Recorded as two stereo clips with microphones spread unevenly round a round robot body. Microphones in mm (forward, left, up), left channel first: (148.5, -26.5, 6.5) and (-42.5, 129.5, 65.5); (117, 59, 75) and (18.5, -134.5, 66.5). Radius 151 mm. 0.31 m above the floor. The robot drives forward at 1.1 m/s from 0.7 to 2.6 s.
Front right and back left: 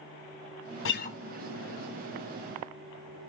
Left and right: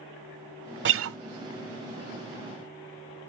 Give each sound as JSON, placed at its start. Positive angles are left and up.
{"t": 0.8, "sound": "a guitar", "azimuth_deg": -80, "distance_m": 0.6}